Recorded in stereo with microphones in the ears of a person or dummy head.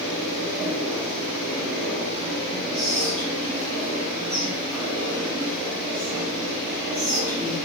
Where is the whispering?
10° left (ahead or behind), 1.9 m.